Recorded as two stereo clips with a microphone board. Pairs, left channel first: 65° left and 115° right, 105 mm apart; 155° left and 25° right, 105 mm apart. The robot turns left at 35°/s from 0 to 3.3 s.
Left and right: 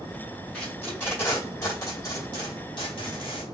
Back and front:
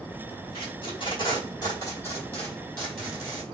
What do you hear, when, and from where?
0.5 s tape being pulled: 155° left, 1.7 m; by 3.4 s 60° left, 1.7 m